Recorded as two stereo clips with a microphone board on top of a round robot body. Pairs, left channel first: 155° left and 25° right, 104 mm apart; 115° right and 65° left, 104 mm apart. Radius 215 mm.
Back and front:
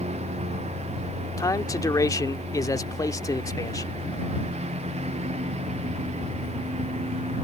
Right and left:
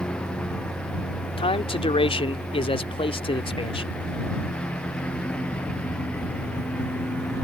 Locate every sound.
0.0 s a lawn mower: 30° right
1.4 s a man speaking: 145° right